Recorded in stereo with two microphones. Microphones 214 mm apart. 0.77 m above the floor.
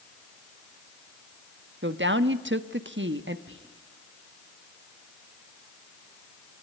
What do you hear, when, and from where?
1.8 s a woman speaking: 55° right (ahead or behind), 1.2 m
3.5 s whispering: 60° right (ahead or behind), 5 m